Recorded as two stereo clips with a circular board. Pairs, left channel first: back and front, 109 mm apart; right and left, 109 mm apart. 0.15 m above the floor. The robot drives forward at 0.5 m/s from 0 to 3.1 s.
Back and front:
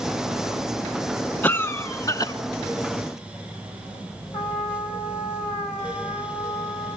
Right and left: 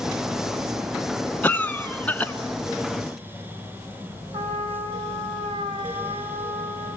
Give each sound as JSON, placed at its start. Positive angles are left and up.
{"t": 1.4, "sound": "a cough", "azimuth_deg": -140, "distance_m": 1.1}
{"t": 4.3, "sound": "a trumpet", "azimuth_deg": 150, "distance_m": 3.5}